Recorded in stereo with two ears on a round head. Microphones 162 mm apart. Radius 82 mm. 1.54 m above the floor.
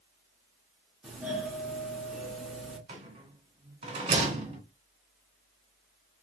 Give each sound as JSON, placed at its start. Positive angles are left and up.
{"t": 1.0, "sound": "a doorbell", "side_deg": -5, "distance_m": 1.2}
{"t": 2.9, "sound": "a rattle", "side_deg": -30, "distance_m": 1.6}